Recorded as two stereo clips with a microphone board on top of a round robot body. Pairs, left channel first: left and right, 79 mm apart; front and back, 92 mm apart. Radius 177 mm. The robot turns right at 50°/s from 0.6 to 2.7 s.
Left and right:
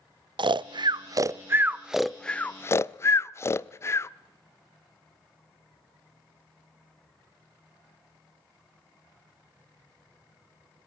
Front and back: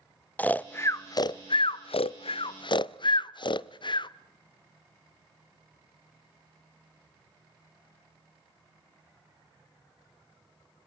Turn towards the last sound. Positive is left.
turn(degrees=30)